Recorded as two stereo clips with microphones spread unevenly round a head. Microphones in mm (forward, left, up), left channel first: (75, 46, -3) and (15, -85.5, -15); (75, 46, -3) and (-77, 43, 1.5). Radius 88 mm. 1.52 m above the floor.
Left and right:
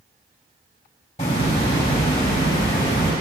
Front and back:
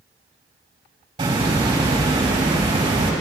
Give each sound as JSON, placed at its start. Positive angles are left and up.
{"t": 1.2, "sound": "a hiss", "azimuth_deg": 125, "distance_m": 3.5}